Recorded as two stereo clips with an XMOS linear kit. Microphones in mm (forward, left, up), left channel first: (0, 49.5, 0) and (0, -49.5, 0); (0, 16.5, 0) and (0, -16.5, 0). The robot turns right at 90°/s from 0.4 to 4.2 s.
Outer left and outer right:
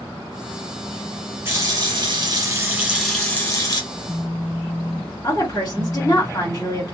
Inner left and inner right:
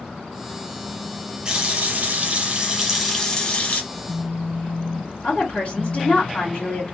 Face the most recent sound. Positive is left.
turn(degrees=35)  # may be behind; listen again after turning